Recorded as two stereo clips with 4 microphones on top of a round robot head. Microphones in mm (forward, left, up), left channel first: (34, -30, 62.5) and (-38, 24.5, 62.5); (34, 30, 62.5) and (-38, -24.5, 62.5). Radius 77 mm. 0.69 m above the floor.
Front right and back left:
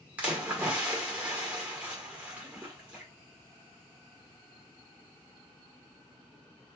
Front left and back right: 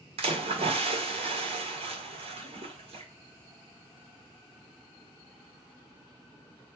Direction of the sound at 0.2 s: 145° right.